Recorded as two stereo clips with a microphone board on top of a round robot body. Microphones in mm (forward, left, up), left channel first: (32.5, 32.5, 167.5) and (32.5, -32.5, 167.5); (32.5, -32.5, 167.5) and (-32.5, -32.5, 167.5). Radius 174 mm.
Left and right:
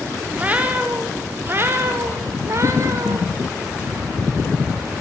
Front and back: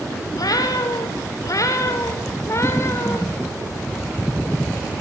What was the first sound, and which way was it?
A cat meowing, 25° right.